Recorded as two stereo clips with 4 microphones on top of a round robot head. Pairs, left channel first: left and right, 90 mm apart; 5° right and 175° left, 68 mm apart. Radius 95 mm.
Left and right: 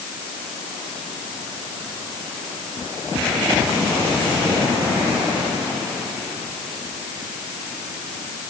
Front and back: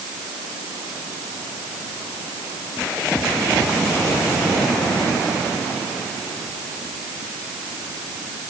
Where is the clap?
I don't hear a clap.